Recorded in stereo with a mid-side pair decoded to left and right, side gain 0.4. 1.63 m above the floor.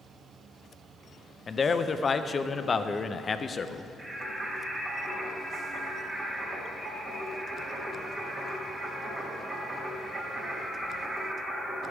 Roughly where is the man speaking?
Ahead left.